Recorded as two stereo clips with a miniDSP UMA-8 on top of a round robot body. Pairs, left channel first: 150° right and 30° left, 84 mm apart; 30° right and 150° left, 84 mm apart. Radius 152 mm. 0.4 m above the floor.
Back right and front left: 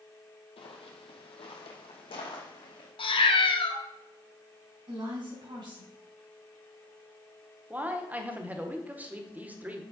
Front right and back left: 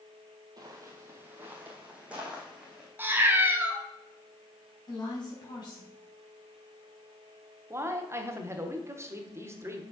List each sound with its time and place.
0.6 s footsteps: 165° right, 0.9 m; by 2.9 s 125° right, 1.9 m
3.0 s a cat meowing: 145° right, 1.0 m
4.9 s a woman speaking: 5° left, 4 m
7.7 s a man speaking: 95° left, 1.3 m